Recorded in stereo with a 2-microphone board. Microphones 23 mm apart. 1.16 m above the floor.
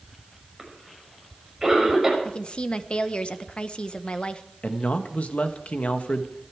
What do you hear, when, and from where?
0.6 s a cough: 15° right (ahead or behind), 6 m
2.2 s a woman speaking: 45° left (ahead or behind), 1.0 m
4.6 s a man speaking: 70° left (ahead or behind), 1.5 m